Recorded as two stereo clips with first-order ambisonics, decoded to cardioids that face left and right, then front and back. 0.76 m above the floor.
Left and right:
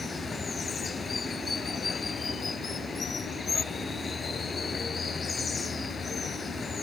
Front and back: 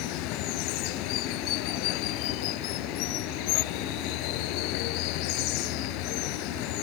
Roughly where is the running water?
Ahead.